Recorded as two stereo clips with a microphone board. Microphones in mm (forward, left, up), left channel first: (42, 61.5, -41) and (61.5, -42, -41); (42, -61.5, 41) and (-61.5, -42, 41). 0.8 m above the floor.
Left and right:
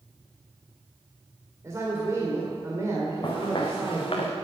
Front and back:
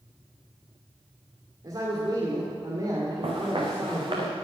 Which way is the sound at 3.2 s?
145° left.